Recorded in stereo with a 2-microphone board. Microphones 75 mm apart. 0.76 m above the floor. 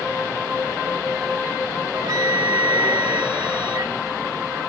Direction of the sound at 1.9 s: 60° right (ahead or behind).